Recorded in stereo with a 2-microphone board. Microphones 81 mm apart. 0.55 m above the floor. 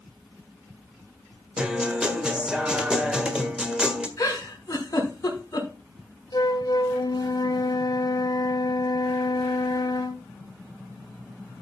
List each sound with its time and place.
1.6 s a guitar: 10° right (ahead or behind), 1.6 m
4.2 s a giggle: 40° left (ahead or behind), 4 m
6.3 s a flute: 55° left (ahead or behind), 0.9 m